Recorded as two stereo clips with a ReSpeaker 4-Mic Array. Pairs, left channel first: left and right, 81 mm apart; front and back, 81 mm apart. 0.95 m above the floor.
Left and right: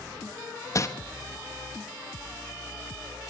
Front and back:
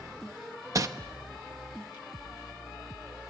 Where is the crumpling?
135° left, 1.0 m.